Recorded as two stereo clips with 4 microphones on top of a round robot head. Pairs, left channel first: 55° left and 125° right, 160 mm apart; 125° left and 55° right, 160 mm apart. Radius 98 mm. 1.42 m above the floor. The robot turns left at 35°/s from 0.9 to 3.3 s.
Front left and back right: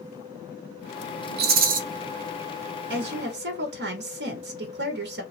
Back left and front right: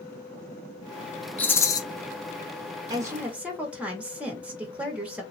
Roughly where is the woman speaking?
Behind right.